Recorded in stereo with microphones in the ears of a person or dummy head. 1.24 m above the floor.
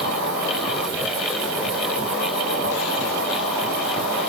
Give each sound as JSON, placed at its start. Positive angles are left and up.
{"t": 0.0, "sound": "an insect", "side_deg": -35, "distance_m": 1.6}